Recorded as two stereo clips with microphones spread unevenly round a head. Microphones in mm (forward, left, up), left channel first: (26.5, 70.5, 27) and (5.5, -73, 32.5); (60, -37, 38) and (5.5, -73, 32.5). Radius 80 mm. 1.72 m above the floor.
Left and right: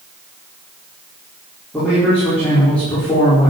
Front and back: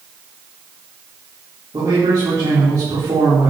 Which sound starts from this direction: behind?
A man speaking, at 1.7 s.